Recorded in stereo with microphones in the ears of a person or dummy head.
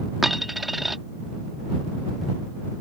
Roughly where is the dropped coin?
Centre.